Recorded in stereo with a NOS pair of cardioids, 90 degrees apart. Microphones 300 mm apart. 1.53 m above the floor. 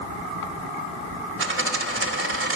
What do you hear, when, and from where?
1.4 s a dropped coin: 45° right, 3 m